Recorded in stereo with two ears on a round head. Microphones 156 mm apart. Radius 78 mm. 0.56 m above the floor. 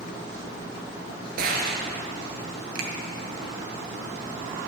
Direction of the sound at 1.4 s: 60° right (ahead or behind).